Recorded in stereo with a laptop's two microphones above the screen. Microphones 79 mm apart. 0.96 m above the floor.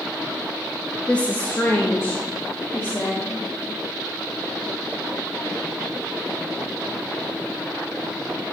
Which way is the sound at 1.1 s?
10° left (ahead or behind).